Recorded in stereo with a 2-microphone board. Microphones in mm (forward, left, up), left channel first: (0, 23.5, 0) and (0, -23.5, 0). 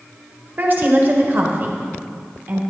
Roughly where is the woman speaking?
Right.